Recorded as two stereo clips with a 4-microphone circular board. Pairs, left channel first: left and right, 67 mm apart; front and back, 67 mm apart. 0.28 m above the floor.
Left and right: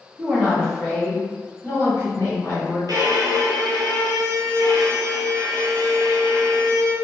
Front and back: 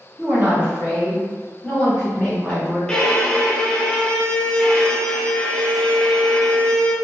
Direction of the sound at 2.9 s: 70° right.